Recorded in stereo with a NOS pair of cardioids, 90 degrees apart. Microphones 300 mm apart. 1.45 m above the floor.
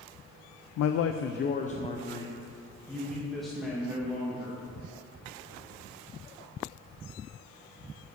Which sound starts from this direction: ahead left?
A man speaking, at 0.8 s.